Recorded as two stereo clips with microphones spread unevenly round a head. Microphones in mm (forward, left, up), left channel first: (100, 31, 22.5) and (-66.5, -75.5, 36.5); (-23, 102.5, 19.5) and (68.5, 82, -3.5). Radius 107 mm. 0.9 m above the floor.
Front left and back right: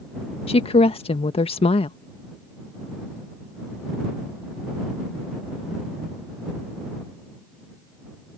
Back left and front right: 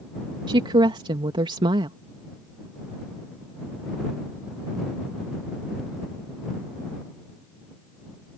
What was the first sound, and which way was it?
A woman speaking, 25° right.